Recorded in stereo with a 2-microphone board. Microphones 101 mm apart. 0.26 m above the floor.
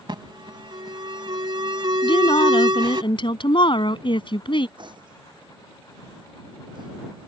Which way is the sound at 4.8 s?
50° right (ahead or behind).